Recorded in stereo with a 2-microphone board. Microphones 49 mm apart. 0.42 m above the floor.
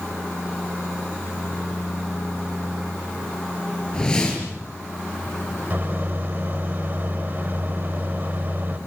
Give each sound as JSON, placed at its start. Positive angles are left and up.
{"t": 3.9, "sound": "a whoosh", "side_deg": 15, "distance_m": 5.0}
{"t": 5.7, "sound": "a microwave", "side_deg": -45, "distance_m": 1.2}